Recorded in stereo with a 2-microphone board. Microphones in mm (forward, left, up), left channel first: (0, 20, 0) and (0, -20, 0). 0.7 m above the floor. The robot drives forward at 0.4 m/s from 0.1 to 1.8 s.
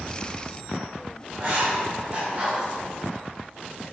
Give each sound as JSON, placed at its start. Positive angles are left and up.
{"t": 1.3, "sound": "writing", "side_deg": -30, "distance_m": 2.5}